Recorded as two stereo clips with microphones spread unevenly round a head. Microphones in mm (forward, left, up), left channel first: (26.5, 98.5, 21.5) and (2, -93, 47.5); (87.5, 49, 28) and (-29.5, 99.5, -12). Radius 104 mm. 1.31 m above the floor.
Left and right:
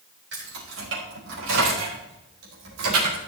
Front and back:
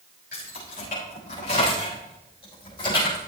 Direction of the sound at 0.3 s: 70° right.